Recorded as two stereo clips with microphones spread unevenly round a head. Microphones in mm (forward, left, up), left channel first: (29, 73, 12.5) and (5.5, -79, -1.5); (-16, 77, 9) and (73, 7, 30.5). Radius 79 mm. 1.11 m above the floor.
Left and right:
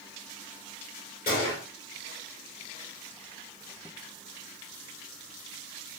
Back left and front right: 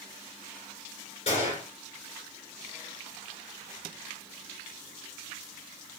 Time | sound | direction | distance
1.3 | a gunshot | 110° left | 2.5 m